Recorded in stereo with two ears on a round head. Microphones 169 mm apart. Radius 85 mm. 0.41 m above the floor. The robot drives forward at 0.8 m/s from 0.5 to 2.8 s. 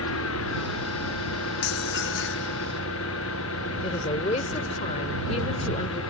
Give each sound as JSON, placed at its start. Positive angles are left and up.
{"t": 0.0, "sound": "an engine running", "side_deg": 80}
{"t": 1.6, "sound": "dishes clattering", "side_deg": 55}
{"t": 3.8, "sound": "a woman speaking", "side_deg": 35}